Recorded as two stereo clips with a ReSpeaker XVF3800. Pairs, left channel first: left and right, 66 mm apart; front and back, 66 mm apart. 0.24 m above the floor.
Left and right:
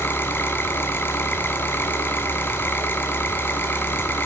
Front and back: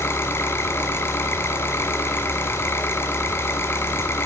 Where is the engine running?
40° left, 1.9 m.